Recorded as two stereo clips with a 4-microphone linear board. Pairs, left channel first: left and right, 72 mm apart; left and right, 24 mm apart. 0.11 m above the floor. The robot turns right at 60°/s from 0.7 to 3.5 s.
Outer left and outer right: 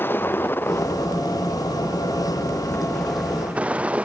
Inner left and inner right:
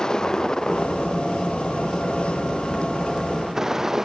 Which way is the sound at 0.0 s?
30° left.